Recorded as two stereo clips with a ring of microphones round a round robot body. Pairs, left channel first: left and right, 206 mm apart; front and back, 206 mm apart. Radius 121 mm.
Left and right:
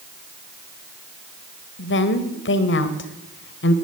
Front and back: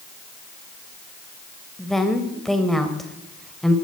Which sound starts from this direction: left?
A woman speaking, at 1.8 s.